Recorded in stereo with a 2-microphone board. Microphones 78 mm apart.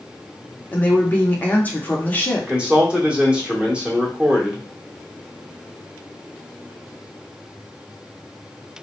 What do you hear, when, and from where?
0.7 s a woman speaking: 25° left (ahead or behind), 0.7 m
2.4 s a man speaking: 15° right (ahead or behind), 1.0 m